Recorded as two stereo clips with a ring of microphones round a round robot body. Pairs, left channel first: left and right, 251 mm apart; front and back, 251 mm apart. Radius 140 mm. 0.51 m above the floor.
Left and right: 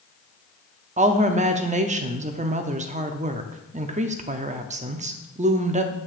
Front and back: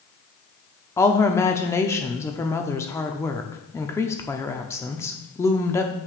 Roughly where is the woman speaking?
Right.